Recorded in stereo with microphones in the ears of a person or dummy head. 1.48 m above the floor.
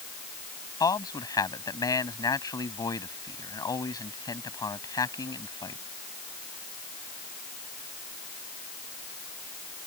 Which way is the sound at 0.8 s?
15° left (ahead or behind).